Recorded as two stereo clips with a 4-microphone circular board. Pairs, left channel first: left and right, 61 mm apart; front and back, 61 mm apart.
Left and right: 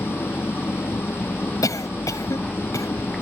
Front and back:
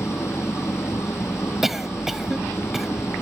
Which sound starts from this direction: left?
A cough, at 1.6 s.